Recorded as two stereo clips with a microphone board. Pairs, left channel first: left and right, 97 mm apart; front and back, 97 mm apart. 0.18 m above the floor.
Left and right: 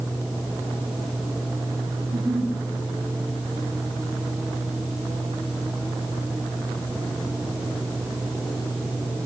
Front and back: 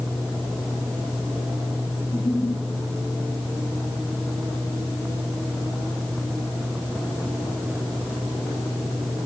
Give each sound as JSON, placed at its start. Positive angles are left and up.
{"t": 2.0, "sound": "a giggle", "azimuth_deg": -55, "distance_m": 6.0}